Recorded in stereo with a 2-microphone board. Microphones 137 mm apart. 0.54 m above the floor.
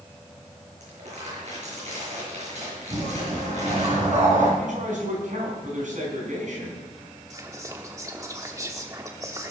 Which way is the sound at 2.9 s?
60° right (ahead or behind).